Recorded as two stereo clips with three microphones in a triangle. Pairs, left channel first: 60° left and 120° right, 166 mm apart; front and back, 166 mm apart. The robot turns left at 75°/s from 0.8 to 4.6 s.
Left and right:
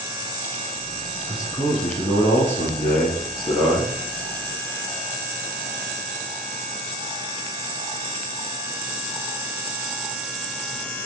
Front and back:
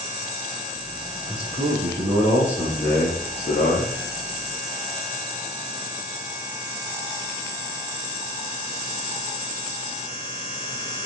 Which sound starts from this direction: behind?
A man speaking, at 1.3 s.